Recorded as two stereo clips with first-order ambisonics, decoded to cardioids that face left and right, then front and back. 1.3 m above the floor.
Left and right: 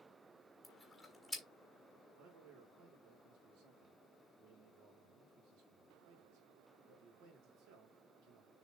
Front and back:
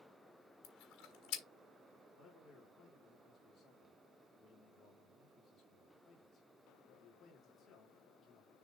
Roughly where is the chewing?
Ahead.